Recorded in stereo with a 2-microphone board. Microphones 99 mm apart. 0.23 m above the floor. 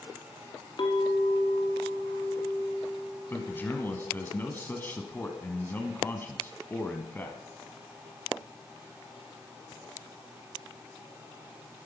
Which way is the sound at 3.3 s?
20° left (ahead or behind).